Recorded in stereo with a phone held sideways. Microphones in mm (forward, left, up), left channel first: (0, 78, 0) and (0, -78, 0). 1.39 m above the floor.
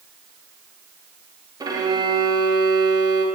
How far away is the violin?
About 0.6 m.